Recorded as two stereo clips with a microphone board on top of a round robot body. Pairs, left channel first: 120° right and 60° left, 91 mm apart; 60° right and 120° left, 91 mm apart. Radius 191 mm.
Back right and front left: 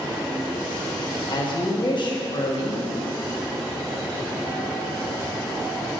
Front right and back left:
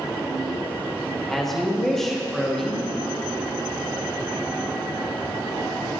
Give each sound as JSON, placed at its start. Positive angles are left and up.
{"t": 1.3, "sound": "a woman speaking", "azimuth_deg": -145, "distance_m": 1.6}